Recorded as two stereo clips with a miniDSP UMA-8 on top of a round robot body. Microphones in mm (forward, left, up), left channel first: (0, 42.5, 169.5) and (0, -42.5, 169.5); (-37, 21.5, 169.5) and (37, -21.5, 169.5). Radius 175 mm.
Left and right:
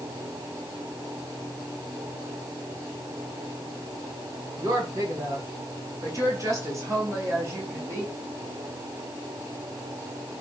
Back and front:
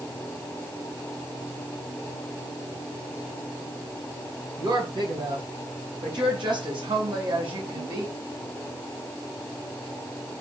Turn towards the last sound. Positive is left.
turn(degrees=-35)